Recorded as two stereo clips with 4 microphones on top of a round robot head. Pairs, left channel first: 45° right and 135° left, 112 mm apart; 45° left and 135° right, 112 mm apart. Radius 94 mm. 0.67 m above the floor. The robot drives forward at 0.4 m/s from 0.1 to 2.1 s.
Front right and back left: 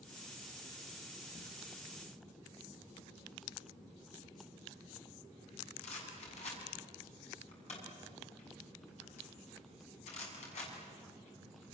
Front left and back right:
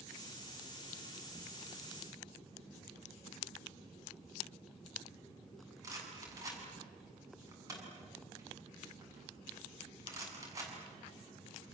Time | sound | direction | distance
5.8 | a rattle | 70° right | 6.5 m